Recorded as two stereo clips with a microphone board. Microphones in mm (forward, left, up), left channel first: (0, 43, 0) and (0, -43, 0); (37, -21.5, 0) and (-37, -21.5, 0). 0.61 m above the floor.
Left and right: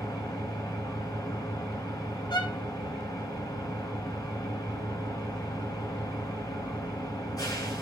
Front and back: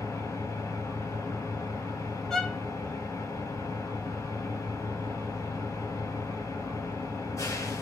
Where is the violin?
80° left, 1.9 m.